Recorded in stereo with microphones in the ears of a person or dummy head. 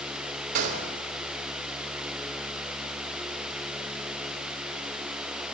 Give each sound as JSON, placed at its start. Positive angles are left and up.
{"t": 0.6, "sound": "a gunshot", "side_deg": -45, "distance_m": 2.5}